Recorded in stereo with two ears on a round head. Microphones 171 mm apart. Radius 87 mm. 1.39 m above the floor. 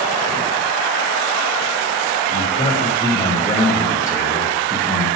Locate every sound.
2.3 s a man speaking: 25° left (ahead or behind), 3.5 m; by 5.1 s centre (ahead or behind), 1.6 m